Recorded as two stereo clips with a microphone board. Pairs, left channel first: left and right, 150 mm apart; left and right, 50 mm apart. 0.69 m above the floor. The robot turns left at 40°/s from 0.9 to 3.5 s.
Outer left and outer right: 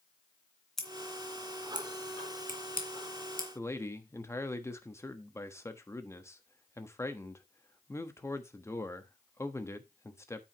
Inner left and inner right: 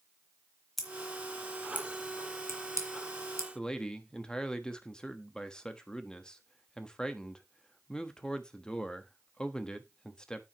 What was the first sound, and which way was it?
Scissors, 5° left (ahead or behind).